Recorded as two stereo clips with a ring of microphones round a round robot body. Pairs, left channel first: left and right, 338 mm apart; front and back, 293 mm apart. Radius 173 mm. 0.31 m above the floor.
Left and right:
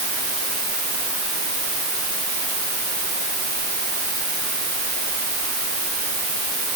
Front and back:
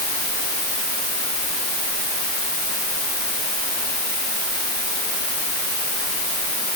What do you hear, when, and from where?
Only background noise.